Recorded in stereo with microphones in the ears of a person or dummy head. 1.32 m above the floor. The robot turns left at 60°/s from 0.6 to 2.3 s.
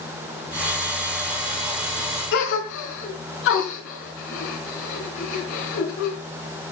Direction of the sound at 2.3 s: 75° left (ahead or behind).